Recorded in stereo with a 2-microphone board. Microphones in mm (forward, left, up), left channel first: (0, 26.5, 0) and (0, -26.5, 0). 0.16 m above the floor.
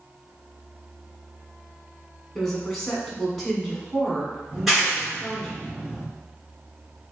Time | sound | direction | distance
2.4 | a woman speaking | 5° left (ahead or behind) | 1.2 m
4.5 | a clap | centre (ahead or behind) | 2.0 m